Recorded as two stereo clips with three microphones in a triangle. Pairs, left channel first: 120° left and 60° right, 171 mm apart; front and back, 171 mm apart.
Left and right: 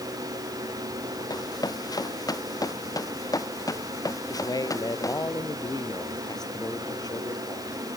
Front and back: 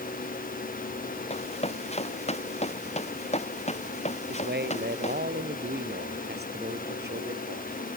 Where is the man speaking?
175° right.